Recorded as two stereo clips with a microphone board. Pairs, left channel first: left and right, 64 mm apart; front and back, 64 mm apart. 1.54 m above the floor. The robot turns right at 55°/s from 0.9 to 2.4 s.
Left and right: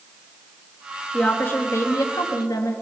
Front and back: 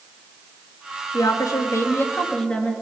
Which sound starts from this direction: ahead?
A woman speaking, at 1.1 s.